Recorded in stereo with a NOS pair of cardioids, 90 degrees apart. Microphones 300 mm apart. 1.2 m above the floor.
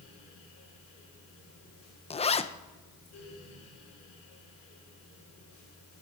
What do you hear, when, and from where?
0.0 s a fan: 65° left, 5 m
2.1 s a zipper: 20° left, 0.7 m